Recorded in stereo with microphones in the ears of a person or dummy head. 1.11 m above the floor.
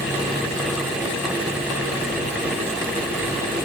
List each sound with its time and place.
Only background noise.